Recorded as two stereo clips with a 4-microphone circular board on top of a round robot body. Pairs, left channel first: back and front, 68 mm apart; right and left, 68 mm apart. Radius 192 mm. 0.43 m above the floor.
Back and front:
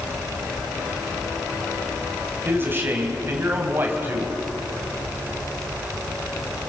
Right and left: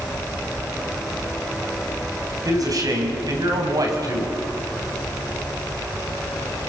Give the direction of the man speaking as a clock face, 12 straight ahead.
10 o'clock.